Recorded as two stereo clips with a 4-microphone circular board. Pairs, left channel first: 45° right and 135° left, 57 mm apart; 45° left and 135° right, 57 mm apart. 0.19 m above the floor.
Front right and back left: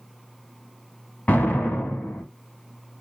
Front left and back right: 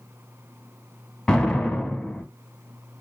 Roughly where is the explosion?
Ahead right.